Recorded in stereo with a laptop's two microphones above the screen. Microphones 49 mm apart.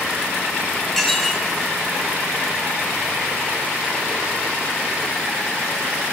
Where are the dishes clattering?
5° left (ahead or behind), 3 m.